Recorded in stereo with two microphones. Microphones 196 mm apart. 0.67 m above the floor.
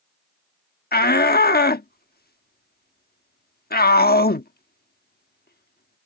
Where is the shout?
55° left (ahead or behind).